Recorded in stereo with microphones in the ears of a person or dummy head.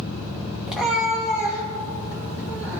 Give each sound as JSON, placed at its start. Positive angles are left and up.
{"t": 0.7, "sound": "a cat meowing", "side_deg": -5, "distance_m": 1.3}